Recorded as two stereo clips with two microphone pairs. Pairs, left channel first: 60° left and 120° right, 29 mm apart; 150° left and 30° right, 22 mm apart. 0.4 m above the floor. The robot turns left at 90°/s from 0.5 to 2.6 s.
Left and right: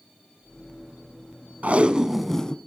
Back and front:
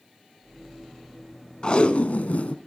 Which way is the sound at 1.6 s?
155° right.